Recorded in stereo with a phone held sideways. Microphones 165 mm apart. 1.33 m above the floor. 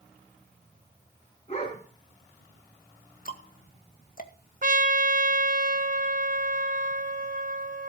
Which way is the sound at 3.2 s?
55° left (ahead or behind).